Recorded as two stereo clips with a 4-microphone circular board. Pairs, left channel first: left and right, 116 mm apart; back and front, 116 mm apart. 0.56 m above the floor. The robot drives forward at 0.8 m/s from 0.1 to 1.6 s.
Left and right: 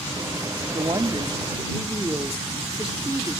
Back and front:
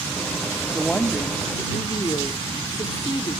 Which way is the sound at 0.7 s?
95° right.